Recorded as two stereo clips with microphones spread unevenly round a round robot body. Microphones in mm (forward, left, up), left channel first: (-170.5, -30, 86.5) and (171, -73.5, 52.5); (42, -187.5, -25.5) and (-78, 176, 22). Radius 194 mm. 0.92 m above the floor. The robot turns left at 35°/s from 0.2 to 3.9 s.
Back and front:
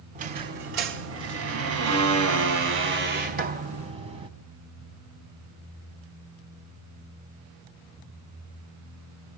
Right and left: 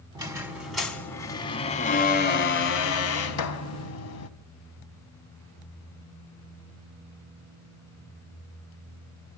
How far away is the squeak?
About 0.8 m.